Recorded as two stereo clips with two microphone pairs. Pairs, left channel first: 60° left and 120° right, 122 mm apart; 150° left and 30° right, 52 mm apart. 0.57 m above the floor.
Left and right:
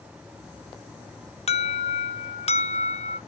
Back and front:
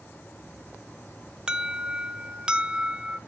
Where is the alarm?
40° left, 0.7 m.